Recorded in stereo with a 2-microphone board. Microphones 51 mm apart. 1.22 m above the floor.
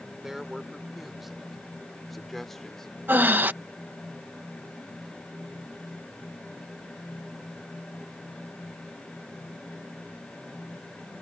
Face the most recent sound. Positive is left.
turn(degrees=-40)  # may be behind; listen again after turning